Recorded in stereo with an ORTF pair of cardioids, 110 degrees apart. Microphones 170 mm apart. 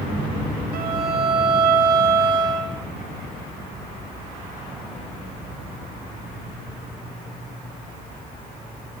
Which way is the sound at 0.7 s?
60° right.